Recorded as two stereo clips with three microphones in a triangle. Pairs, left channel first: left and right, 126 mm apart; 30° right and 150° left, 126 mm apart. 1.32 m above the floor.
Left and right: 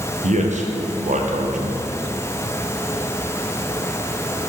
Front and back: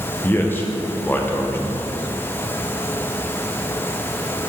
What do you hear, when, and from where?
0.2 s a man speaking: 105° right, 0.9 m